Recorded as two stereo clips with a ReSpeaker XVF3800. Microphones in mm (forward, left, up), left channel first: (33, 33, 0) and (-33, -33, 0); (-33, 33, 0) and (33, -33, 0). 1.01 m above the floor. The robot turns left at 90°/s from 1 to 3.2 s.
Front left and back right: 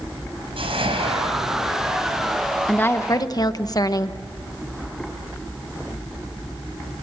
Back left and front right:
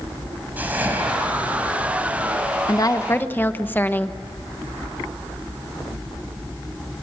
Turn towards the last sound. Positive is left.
turn(degrees=75)